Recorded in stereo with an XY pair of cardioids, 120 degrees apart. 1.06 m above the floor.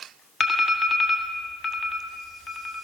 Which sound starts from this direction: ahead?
An alarm, at 0.4 s.